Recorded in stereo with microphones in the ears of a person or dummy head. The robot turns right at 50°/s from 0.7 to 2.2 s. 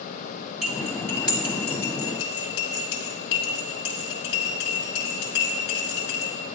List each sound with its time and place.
0.6 s cutlery clinking: 5° right (ahead or behind), 2.5 m; by 6.3 s 70° left (ahead or behind), 2.5 m